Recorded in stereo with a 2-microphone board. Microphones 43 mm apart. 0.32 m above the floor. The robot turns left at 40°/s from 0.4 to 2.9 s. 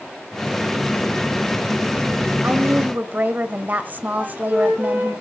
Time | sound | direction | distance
2.4 | a woman speaking | 40° right (ahead or behind) | 1.4 m
4.2 | a flute | 40° right (ahead or behind) | 5.5 m